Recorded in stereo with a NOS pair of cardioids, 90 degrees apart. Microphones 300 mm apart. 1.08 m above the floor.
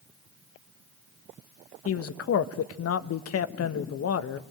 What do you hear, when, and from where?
1.9 s a man speaking: 55° left, 1.3 m